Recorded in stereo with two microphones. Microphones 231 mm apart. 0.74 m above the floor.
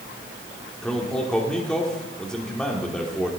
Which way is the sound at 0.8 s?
5° left (ahead or behind).